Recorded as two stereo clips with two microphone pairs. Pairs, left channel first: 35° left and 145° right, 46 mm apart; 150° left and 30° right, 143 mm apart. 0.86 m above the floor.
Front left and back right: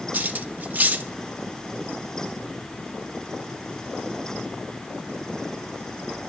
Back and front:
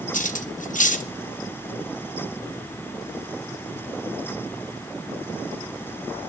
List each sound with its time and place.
0.1 s cutlery clinking: 170° left, 0.7 m